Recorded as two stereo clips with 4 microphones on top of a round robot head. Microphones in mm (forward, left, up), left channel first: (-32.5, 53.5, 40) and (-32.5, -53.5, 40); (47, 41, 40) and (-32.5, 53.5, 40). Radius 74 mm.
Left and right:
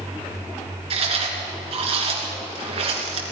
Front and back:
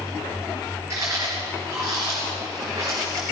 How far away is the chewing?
About 3 m.